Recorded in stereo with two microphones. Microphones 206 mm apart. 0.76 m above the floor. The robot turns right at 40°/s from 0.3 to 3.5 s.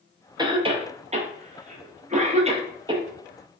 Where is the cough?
20° right (ahead or behind), 0.5 m.